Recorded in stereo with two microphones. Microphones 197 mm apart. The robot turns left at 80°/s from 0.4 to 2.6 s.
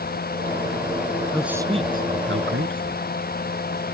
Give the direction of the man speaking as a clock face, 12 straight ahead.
12 o'clock.